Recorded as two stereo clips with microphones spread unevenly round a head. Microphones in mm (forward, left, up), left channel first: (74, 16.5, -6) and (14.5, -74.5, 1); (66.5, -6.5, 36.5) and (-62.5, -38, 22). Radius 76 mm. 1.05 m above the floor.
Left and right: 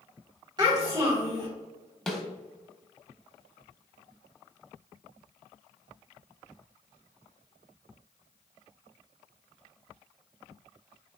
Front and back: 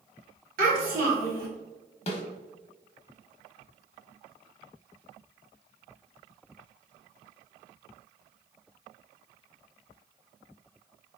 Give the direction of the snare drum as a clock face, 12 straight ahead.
1 o'clock.